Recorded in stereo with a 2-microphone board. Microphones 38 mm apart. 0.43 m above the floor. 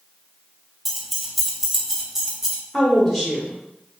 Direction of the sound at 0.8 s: 5° right (ahead or behind).